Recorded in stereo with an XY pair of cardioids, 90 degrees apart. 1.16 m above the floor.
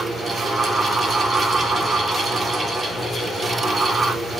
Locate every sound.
0.0 s a fan: 40° right, 8.5 m